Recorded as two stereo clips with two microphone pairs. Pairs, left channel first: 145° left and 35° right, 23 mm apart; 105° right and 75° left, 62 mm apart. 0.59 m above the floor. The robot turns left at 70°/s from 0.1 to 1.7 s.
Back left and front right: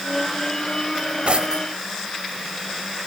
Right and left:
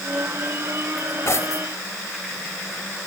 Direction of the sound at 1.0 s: 45° right.